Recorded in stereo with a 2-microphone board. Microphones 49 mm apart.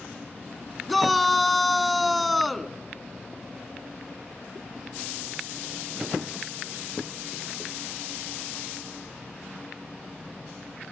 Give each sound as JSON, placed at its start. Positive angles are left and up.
{"t": 0.9, "sound": "a shout", "side_deg": 0, "distance_m": 1.1}